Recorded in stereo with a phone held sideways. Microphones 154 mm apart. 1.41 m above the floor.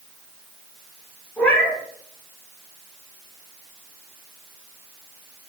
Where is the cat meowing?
10° left (ahead or behind), 4 m.